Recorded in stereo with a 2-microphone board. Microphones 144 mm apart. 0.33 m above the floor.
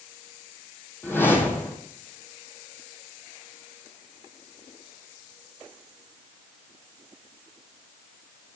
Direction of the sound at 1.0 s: 15° left (ahead or behind).